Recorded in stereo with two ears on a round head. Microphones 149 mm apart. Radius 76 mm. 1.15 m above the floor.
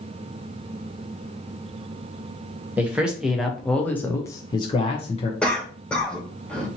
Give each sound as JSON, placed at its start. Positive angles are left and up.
{"t": 2.8, "sound": "a man speaking", "side_deg": -10, "distance_m": 1.2}
{"t": 5.4, "sound": "a cough", "side_deg": 5, "distance_m": 1.3}